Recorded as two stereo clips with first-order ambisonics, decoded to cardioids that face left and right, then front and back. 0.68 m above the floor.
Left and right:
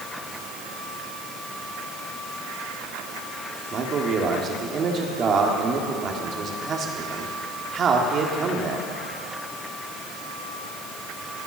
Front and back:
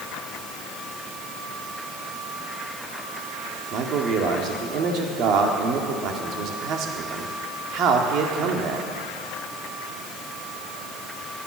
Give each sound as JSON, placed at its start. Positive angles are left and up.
{"t": 3.7, "sound": "a man speaking", "azimuth_deg": -145, "distance_m": 1.7}